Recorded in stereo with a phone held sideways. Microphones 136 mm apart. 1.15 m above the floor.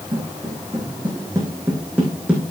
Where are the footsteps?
30° right (ahead or behind), 5 m; by 2.5 s 5° right (ahead or behind), 4 m.